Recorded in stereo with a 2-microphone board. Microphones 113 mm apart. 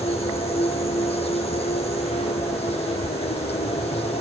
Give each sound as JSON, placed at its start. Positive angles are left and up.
{"t": 0.0, "sound": "an insect", "side_deg": 70, "distance_m": 1.3}